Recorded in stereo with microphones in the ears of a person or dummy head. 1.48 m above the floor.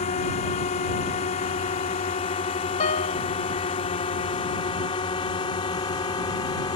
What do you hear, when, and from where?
0.0 s a drone: 35° left (ahead or behind); by 6.8 s 20° left (ahead or behind)
2.8 s a piano: 35° left (ahead or behind)